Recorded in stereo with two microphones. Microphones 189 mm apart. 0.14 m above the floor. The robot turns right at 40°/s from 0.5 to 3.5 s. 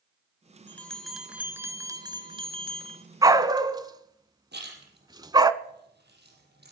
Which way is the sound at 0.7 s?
165° left.